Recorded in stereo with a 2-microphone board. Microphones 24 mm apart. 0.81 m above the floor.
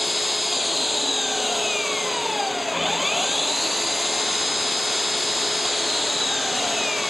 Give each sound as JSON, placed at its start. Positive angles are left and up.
{"t": 0.0, "sound": "an engine running", "side_deg": 0}